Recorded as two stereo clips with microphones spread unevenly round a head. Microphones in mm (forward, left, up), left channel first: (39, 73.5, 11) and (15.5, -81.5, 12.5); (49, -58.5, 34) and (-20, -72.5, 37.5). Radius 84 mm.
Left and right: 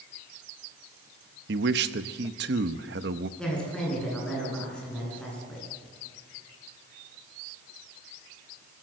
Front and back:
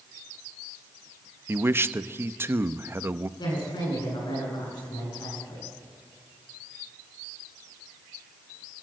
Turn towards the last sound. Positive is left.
turn(degrees=-5)